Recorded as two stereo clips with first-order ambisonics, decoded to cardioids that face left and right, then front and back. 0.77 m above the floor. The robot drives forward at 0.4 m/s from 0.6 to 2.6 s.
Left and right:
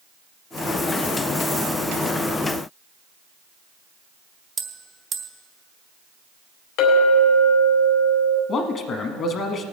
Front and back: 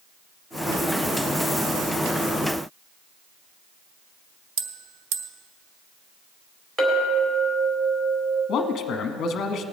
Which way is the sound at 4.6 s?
160° right.